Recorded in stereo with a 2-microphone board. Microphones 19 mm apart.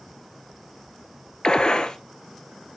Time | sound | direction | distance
1.4 | a gunshot | 50° left (ahead or behind) | 0.7 m